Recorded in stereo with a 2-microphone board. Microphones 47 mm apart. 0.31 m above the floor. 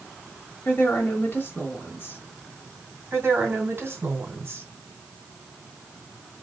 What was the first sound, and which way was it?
A woman speaking, 40° left (ahead or behind).